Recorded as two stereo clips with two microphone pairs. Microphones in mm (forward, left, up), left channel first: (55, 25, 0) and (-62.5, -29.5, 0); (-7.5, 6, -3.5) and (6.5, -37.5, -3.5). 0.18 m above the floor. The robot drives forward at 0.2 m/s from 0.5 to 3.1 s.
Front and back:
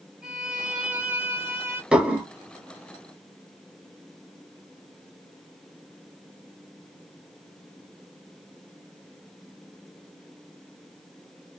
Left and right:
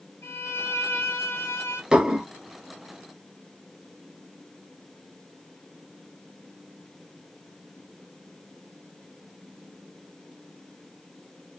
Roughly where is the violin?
Behind left.